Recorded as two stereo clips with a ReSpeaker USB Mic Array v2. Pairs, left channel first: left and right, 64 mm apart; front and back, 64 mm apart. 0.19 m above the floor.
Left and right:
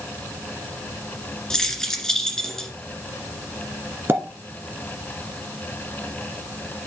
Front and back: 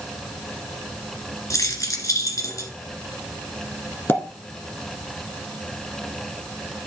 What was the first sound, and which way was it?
Keys jangling, 10° left.